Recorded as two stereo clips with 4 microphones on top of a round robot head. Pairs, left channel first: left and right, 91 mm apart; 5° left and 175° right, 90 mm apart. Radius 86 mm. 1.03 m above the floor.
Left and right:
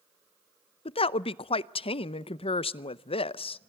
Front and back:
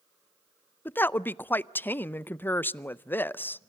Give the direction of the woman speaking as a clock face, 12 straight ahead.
9 o'clock.